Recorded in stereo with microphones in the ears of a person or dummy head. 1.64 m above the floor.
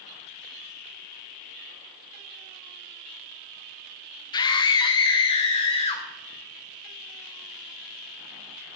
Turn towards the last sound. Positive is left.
turn(degrees=25)  # may be behind; listen again after turning